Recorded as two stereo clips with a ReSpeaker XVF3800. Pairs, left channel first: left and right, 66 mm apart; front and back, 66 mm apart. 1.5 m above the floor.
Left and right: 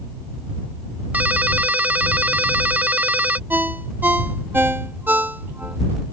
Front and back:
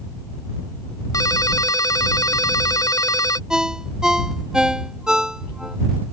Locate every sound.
1.1 s a ringtone: 25° right
3.5 s a ringtone: 110° right